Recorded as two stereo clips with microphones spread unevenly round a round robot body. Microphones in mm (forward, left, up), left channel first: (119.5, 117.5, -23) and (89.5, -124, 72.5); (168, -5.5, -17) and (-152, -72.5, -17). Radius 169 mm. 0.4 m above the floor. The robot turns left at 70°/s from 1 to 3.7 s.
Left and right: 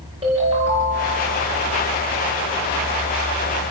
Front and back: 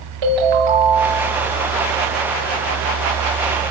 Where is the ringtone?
175° right, 5 m; by 1.4 s 155° left, 5 m.